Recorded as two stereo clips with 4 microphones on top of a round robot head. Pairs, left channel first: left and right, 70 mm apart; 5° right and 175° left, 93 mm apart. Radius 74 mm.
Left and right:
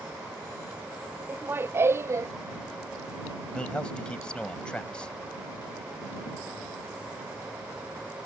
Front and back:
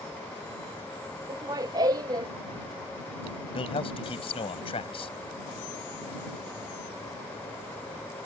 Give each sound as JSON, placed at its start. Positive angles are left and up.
{"t": 1.3, "sound": "laughter", "azimuth_deg": -145}
{"t": 3.5, "sound": "a man speaking", "azimuth_deg": 10}